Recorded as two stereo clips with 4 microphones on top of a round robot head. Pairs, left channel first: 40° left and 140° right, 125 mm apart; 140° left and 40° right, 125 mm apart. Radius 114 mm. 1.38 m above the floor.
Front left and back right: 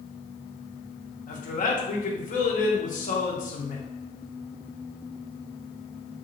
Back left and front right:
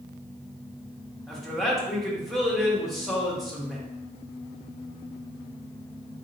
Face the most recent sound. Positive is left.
turn(degrees=50)